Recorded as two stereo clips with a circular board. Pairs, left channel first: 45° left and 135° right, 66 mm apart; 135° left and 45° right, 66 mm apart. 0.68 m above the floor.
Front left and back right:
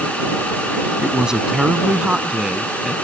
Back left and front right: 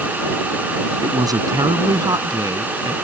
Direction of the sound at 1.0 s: 55° right.